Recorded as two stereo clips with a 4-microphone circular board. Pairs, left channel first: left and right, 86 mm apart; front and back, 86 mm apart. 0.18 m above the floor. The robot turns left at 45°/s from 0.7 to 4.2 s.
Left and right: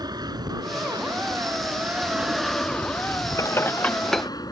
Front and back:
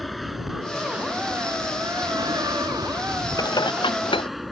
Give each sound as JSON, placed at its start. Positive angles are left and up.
{"t": 0.0, "sound": "an aircraft", "azimuth_deg": -90}
{"t": 3.4, "sound": "dishes clattering", "azimuth_deg": 40}